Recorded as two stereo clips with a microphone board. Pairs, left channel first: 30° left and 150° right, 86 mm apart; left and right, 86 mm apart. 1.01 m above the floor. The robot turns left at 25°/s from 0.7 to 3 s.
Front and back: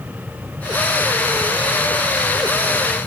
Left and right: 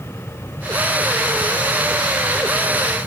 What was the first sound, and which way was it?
Only background noise.